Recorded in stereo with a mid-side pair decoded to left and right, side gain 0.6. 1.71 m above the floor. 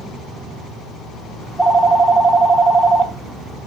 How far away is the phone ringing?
About 2.5 m.